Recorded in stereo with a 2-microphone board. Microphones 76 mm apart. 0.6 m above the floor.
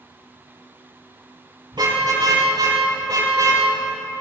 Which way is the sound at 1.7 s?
70° right (ahead or behind).